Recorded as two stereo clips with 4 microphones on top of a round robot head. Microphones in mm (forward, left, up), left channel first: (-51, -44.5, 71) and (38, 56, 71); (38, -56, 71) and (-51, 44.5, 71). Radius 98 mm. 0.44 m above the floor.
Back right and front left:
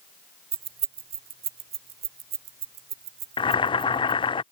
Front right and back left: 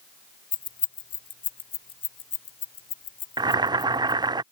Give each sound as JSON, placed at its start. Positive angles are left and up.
{"t": 0.5, "sound": "keys jangling", "azimuth_deg": 5}
{"t": 3.4, "sound": "boiling", "azimuth_deg": -175}